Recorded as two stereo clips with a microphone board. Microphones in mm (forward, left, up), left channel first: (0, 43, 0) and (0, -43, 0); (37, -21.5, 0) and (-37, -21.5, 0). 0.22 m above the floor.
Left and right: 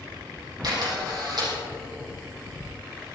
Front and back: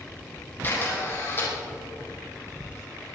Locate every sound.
0.6 s a camera shutter: 60° right, 6.5 m